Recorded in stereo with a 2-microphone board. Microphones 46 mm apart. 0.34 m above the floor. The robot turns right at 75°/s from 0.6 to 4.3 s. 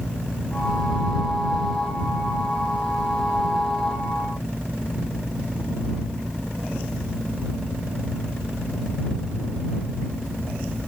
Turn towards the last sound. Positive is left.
No sound to turn to.